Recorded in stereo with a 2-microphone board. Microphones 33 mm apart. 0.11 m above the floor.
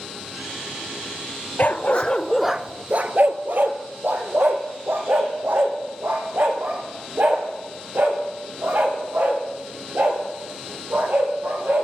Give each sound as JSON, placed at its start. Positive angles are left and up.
{"t": 1.6, "sound": "a dog barking", "side_deg": 55, "distance_m": 0.8}